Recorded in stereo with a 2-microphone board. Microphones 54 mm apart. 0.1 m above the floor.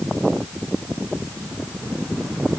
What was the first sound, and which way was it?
Only background noise.